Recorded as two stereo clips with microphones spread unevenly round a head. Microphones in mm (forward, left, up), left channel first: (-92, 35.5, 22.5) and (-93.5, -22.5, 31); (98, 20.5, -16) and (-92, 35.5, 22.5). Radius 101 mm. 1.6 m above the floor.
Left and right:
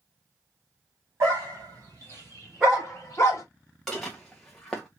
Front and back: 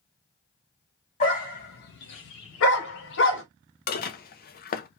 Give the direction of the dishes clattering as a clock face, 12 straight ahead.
12 o'clock.